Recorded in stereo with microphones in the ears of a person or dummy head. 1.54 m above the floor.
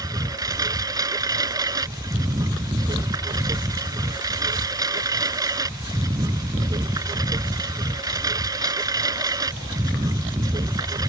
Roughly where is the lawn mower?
Centre.